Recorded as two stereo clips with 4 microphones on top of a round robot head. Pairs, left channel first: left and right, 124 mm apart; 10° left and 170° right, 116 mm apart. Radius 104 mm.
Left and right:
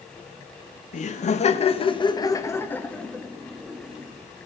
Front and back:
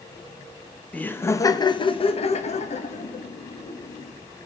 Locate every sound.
0.9 s laughter: 90° left, 1.3 m; by 4.1 s 10° right, 2.5 m